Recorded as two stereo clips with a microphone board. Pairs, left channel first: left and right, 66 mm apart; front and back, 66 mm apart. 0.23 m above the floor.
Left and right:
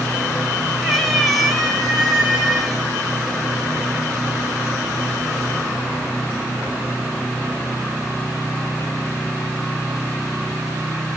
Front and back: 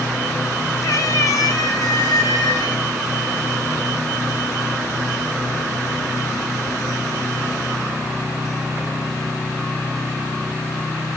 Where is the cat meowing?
5° left, 0.9 m; by 2.8 s straight ahead, 2 m.